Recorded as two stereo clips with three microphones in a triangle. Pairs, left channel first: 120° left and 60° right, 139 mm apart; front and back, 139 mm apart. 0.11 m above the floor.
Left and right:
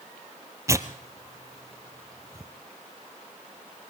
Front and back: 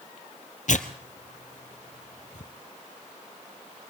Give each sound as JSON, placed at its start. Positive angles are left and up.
{"t": 0.7, "sound": "tearing paper", "azimuth_deg": 5, "distance_m": 1.2}